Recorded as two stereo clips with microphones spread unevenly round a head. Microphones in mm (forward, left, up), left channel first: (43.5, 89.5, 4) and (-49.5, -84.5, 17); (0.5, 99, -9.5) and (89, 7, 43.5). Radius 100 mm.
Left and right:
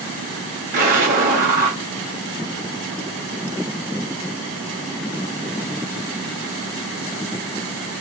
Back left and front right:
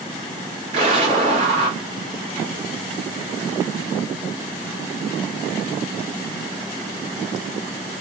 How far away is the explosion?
About 1.5 m.